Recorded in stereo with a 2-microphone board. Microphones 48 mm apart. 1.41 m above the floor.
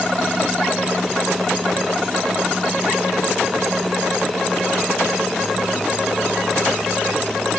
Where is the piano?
I don't hear a piano.